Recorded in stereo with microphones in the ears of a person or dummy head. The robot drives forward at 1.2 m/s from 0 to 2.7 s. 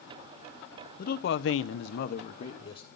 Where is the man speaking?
45° left (ahead or behind), 1.1 m; by 2.9 s 30° left (ahead or behind), 1.5 m.